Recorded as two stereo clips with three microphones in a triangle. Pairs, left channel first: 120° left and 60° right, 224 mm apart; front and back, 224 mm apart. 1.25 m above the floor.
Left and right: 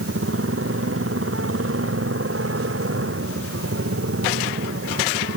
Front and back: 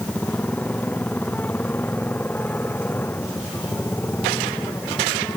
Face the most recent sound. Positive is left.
turn(degrees=-80)